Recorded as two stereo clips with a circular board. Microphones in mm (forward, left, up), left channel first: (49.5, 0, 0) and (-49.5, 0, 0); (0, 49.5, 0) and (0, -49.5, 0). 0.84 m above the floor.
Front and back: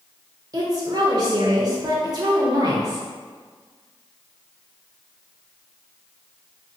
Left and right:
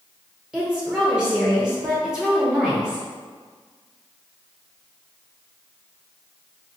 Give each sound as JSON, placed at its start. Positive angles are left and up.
{"t": 0.5, "sound": "a woman speaking", "azimuth_deg": -165, "distance_m": 0.7}